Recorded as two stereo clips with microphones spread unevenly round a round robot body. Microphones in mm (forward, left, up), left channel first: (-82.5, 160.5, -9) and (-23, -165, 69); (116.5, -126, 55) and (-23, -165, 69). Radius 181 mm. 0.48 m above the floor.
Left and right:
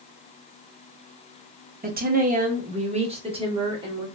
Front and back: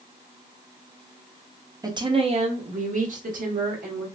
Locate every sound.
1.8 s a woman speaking: 135° right, 0.8 m; by 4.1 s 160° right, 1.6 m